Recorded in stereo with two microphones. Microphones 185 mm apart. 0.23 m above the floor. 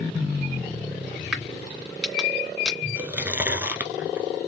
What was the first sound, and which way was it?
A crack, 5° right (ahead or behind).